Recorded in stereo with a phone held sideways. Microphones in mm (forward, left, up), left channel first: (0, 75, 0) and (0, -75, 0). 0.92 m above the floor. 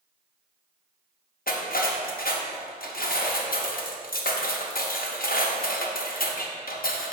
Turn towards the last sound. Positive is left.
turn(degrees=75)  # may be behind; listen again after turning